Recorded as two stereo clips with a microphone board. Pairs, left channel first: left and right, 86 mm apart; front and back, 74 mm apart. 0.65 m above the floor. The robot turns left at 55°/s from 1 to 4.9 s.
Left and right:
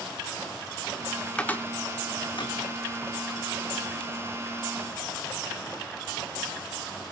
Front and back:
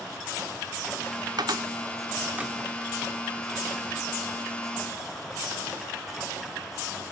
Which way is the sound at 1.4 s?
165° left.